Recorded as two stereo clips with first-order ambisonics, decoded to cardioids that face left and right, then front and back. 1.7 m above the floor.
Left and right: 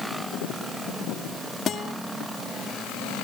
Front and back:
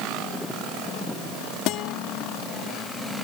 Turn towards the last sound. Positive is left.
turn(degrees=30)